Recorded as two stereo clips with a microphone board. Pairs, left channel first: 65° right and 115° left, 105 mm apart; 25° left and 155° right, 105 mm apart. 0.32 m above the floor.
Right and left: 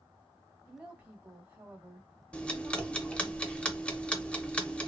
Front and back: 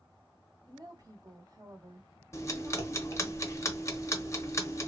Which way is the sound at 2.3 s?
Straight ahead.